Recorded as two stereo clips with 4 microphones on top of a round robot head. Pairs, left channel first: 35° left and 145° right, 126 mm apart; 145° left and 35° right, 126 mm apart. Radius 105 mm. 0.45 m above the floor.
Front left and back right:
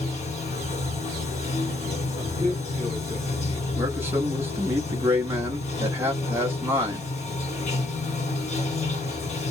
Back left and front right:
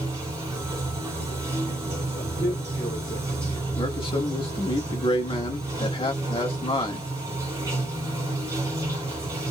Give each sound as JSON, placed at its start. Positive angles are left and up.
{"t": 0.0, "sound": "running water", "azimuth_deg": 30, "distance_m": 1.7}
{"t": 2.2, "sound": "a man speaking", "azimuth_deg": 135, "distance_m": 1.6}
{"t": 3.8, "sound": "a man speaking", "azimuth_deg": 150, "distance_m": 0.9}